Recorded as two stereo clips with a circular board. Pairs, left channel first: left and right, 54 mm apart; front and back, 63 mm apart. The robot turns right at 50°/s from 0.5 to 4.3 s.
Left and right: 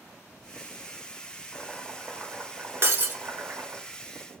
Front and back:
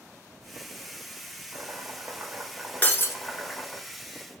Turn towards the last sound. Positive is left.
turn(degrees=15)